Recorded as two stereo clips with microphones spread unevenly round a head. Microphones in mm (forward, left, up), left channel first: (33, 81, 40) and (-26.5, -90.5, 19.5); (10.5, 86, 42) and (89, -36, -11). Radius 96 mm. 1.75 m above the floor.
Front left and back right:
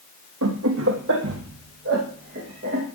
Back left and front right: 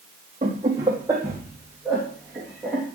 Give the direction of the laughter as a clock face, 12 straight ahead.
4 o'clock.